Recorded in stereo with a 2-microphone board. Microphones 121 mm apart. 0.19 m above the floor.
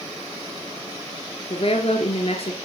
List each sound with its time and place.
1.5 s a woman speaking: 55° left (ahead or behind), 2.5 m